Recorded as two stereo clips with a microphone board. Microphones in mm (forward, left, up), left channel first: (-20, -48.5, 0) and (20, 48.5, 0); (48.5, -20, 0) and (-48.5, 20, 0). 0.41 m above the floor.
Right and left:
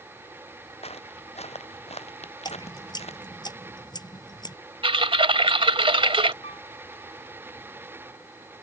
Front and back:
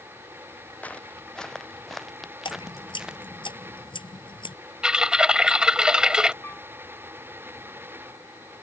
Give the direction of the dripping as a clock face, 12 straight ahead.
2 o'clock.